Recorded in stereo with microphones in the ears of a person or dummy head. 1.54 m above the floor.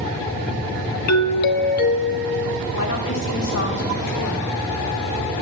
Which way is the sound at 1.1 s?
55° left (ahead or behind).